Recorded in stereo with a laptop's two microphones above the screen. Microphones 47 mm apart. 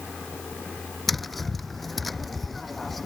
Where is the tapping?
Centre (ahead or behind).